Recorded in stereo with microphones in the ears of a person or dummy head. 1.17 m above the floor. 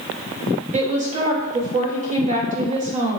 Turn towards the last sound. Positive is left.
turn(degrees=-35)  # may be behind; listen again after turning